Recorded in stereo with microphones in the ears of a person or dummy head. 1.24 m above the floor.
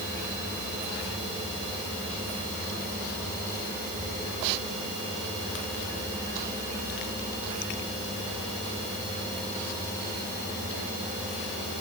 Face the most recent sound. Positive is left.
No sound to turn to.